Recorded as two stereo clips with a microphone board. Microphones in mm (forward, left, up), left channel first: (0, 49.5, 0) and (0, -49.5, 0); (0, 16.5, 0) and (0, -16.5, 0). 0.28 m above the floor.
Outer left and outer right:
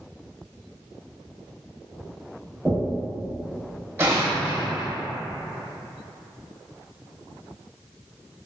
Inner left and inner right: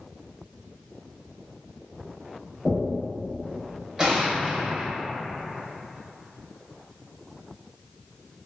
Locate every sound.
2.6 s knocking: 15° right (ahead or behind), 0.7 m
4.0 s an explosion: 25° right (ahead or behind), 0.6 m